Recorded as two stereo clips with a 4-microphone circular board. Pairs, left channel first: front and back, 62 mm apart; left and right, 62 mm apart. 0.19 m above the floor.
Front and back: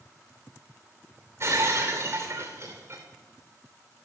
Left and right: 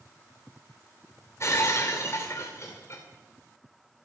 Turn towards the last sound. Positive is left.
turn(degrees=135)